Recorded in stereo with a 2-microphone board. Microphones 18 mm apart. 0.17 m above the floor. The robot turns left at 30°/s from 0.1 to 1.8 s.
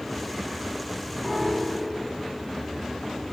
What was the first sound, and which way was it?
A piano, 30° left (ahead or behind).